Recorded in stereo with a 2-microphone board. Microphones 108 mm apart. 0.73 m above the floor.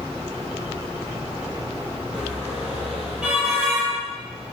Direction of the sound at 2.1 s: 10° right (ahead or behind).